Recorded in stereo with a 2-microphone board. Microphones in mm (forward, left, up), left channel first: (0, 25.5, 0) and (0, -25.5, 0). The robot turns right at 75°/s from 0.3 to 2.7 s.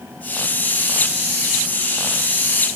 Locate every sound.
Only background noise.